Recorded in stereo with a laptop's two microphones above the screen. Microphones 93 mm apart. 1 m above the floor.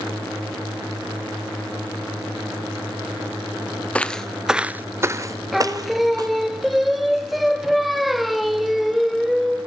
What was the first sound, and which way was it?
Footsteps, 15° left (ahead or behind).